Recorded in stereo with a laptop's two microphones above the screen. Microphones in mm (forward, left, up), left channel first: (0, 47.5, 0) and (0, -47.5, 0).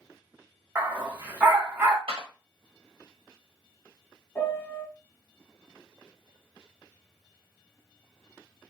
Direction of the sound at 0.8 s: 20° right (ahead or behind).